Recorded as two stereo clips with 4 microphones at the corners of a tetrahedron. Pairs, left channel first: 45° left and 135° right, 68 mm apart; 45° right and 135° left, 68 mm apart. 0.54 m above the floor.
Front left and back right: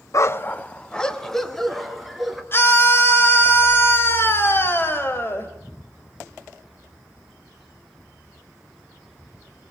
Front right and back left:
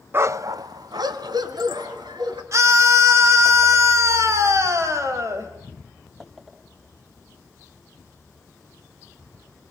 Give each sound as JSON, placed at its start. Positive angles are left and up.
{"t": 0.1, "sound": "a dog barking", "azimuth_deg": 80, "distance_m": 0.6}
{"t": 2.5, "sound": "a scream", "azimuth_deg": 100, "distance_m": 3.0}